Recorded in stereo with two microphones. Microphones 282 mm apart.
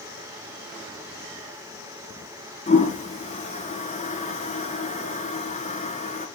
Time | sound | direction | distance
2.7 | a toilet flushing | 25° left (ahead or behind) | 1.9 m